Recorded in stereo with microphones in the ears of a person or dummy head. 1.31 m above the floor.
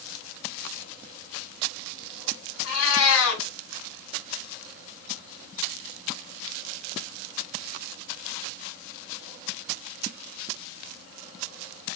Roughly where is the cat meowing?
Left.